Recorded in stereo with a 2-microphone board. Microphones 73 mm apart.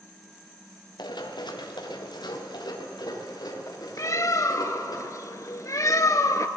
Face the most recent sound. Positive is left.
turn(degrees=50)  # may be behind; listen again after turning